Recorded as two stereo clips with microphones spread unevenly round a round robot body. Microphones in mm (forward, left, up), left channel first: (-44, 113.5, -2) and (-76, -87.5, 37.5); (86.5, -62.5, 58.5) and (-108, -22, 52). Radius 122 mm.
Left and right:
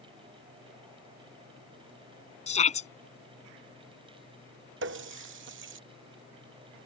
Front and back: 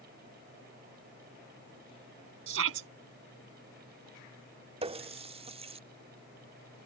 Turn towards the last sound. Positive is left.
turn(degrees=-130)